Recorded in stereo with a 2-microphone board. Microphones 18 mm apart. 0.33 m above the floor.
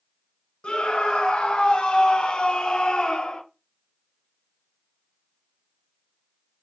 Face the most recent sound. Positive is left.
turn(degrees=50)  # may be behind; listen again after turning